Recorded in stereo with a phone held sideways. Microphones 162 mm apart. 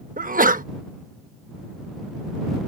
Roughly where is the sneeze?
Right.